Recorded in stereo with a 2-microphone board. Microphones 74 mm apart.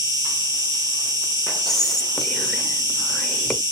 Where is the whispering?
5° left (ahead or behind), 0.9 m.